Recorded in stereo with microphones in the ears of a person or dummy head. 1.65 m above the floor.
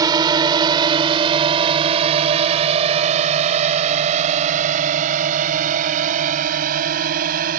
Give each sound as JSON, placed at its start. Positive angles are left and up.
{"t": 0.0, "sound": "a drone", "side_deg": -25}